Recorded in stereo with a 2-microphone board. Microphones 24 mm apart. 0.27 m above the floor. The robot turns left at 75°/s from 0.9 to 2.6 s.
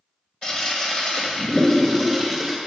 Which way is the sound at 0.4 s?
30° left (ahead or behind).